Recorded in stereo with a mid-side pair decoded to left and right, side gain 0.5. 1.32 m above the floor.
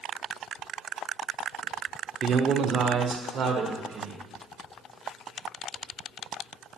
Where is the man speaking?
50° right, 0.6 m; by 4.3 s 70° right, 1.6 m.